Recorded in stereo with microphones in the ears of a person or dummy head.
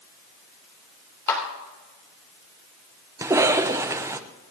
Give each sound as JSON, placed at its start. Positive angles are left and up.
{"t": 1.3, "sound": "a clap", "side_deg": 10, "distance_m": 3.0}
{"t": 3.2, "sound": "a cough", "side_deg": -15, "distance_m": 0.8}